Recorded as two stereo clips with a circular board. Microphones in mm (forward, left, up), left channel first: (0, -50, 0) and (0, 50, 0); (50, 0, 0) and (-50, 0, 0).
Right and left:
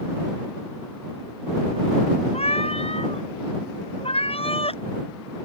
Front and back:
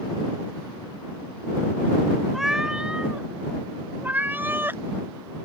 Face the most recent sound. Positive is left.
turn(degrees=-110)